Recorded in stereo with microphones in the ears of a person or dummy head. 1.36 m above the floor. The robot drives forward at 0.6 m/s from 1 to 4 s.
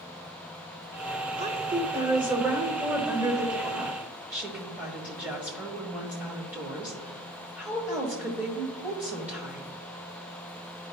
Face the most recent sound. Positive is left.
turn(degrees=-10)  # may be behind; listen again after turning